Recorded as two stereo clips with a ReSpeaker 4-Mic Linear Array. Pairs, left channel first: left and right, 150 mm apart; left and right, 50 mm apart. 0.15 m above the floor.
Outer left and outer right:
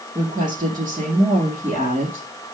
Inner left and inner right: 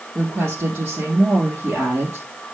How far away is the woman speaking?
About 3 m.